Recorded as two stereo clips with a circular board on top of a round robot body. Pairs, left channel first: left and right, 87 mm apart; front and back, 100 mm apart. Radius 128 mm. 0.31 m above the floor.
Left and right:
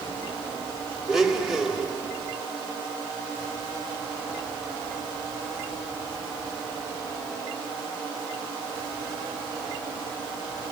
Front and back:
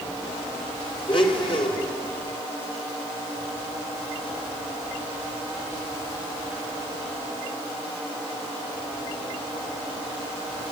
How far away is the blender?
About 2.5 m.